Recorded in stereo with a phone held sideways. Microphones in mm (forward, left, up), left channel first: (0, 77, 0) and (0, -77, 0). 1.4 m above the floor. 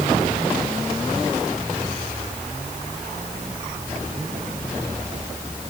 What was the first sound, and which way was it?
Only background noise.